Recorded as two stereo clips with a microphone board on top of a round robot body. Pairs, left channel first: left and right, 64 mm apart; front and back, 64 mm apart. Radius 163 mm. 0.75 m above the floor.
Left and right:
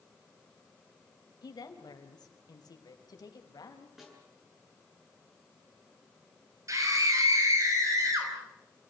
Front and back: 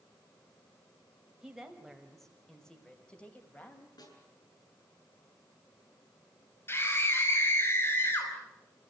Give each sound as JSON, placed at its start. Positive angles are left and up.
{"t": 1.4, "sound": "a woman speaking", "azimuth_deg": 100, "distance_m": 4.0}
{"t": 4.0, "sound": "a snare drum", "azimuth_deg": 0, "distance_m": 8.0}
{"t": 6.7, "sound": "a scream", "azimuth_deg": -50, "distance_m": 5.5}